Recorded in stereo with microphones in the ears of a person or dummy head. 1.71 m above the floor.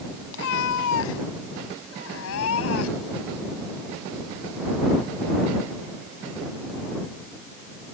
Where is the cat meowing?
75° left (ahead or behind); by 3.2 s 85° left.